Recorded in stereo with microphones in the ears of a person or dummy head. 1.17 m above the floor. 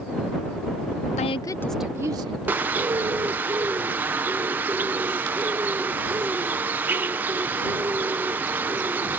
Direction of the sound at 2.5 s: 15° right (ahead or behind).